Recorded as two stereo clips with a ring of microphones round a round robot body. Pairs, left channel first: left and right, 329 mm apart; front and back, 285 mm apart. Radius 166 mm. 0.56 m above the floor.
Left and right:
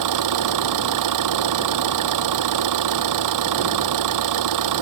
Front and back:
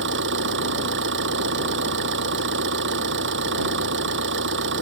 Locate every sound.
0.0 s an engine running: 120° right